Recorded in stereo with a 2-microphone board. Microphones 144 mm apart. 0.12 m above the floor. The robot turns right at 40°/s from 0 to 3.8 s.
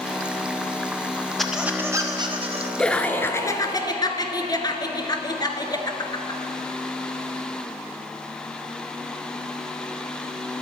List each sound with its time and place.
1.4 s a squeak: straight behind, 2 m; by 2.7 s 130° right, 2 m
2.8 s laughter: 10° left, 1.3 m; by 6.4 s 50° left, 1.3 m